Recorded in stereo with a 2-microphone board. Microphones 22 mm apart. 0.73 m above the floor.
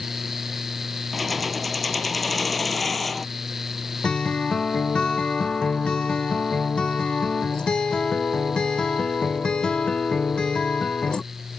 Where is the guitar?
45° left (ahead or behind).